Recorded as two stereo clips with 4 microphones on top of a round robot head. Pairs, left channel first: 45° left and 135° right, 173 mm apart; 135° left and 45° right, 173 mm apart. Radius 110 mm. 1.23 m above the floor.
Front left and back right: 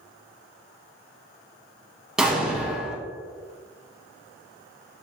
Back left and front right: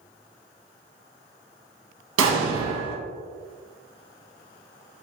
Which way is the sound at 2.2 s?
50° right.